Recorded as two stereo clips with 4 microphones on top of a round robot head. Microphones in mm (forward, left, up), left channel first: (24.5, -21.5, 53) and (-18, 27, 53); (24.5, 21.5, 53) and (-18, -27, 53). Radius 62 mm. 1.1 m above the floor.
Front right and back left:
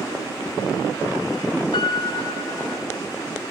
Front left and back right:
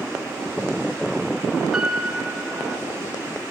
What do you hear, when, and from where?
1.7 s a piano: 50° right, 1.1 m